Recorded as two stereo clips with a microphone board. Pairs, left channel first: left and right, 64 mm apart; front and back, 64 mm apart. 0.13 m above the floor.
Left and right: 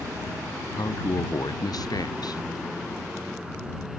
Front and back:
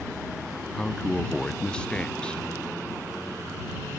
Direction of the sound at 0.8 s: 75° left.